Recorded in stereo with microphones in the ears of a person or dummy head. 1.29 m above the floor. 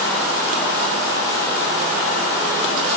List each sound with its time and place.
Only background noise.